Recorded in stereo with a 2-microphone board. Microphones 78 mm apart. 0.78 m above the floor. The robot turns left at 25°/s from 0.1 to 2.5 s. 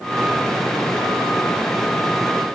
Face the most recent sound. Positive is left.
No sound to turn to.